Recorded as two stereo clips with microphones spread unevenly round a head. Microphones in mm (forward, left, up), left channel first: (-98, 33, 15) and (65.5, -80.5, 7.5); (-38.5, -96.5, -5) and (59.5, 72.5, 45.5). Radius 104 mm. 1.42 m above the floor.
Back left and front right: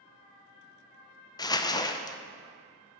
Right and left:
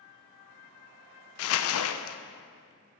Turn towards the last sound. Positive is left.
turn(degrees=-145)